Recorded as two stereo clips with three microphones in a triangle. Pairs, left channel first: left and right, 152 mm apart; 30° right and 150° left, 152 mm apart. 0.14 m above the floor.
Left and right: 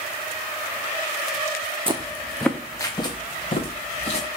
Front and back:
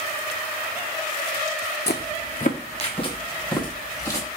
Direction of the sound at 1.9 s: 30° right.